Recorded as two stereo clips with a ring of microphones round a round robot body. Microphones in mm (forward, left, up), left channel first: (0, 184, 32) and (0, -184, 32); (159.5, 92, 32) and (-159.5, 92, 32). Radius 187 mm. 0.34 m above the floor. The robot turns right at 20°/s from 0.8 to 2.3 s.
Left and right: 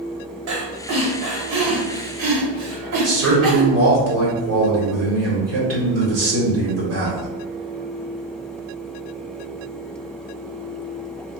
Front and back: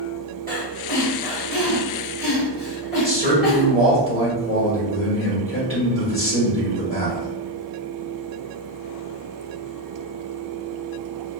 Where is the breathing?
125° right, 1.4 m; by 3.7 s 95° right, 1.4 m.